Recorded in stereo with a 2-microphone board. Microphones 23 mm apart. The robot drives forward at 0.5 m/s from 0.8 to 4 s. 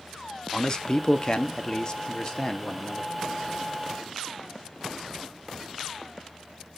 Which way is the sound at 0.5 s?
30° left (ahead or behind).